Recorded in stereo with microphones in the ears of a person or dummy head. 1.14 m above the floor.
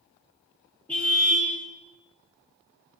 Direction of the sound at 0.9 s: 5° left (ahead or behind).